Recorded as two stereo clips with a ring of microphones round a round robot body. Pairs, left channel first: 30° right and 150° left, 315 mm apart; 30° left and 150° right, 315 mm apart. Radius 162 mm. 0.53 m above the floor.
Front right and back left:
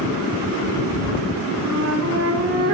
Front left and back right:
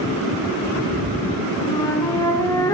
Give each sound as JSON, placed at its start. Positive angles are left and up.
{"t": 1.6, "sound": "a flute", "azimuth_deg": 110, "distance_m": 2.5}